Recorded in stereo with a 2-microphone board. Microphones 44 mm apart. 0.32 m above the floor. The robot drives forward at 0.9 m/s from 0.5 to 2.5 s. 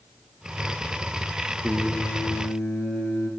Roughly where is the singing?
Left.